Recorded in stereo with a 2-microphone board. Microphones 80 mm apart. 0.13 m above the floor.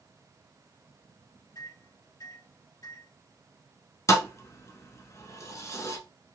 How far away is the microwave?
About 3 m.